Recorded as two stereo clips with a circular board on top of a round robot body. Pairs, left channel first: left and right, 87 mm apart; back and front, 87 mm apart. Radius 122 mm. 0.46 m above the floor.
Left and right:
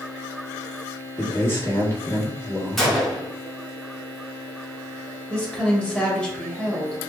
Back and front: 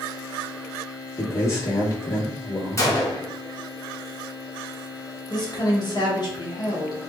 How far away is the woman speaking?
About 1.5 m.